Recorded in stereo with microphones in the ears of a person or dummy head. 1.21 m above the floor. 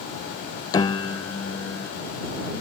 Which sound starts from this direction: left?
A piano, at 0.7 s.